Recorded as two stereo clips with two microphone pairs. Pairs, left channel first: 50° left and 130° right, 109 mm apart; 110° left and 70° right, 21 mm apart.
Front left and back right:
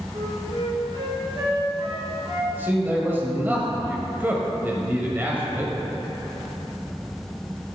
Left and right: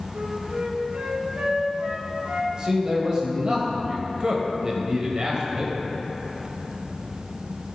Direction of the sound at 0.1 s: 90° right.